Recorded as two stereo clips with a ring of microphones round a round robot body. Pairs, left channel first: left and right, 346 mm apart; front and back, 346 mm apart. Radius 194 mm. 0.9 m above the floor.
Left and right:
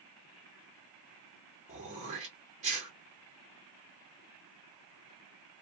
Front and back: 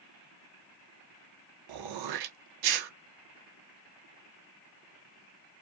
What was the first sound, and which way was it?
Throat clearing, 160° right.